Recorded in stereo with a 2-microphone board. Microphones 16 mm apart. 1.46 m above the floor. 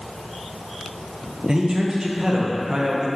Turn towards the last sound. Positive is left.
turn(degrees=-65)  # may be behind; listen again after turning